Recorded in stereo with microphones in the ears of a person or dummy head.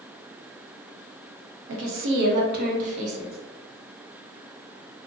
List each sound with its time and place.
1.7 s a woman speaking: 75° right (ahead or behind), 0.8 m; by 3.4 s 40° right (ahead or behind), 1.0 m